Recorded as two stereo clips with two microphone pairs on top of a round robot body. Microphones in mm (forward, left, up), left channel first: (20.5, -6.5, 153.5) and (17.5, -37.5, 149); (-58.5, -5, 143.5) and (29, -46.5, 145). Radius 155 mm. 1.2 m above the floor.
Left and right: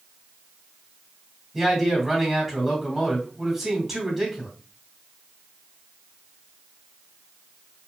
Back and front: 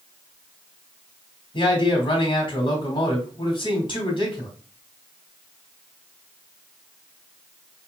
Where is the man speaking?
175° right, 2.5 m.